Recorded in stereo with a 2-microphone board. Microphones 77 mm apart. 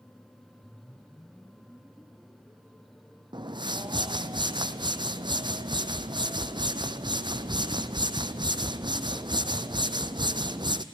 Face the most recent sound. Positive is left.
turn(degrees=-85)